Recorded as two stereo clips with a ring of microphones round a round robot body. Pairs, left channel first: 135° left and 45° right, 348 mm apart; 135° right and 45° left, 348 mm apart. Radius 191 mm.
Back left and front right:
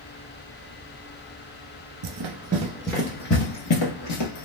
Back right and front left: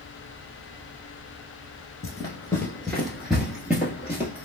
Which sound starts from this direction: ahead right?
Running footsteps, at 2.0 s.